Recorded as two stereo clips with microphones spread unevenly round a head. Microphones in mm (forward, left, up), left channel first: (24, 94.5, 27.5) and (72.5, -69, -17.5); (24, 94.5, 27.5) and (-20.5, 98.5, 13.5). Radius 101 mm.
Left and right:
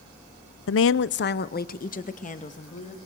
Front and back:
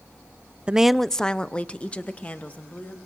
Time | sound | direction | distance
0.7 | a woman speaking | 120° left | 0.6 m